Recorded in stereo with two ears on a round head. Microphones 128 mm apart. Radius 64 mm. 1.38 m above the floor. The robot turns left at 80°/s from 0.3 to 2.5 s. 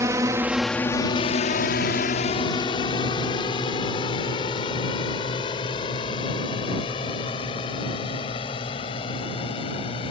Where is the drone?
25° right (ahead or behind); by 10.1 s 40° left (ahead or behind).